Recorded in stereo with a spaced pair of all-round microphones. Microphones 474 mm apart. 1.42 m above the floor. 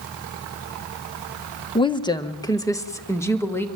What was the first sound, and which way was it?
A woman speaking, 10° left (ahead or behind).